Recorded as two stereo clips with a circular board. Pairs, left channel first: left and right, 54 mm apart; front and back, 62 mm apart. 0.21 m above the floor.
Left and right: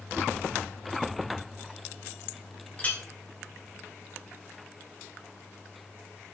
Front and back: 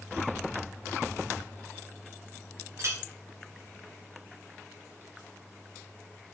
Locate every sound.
2.8 s a clink: 150° left, 1.7 m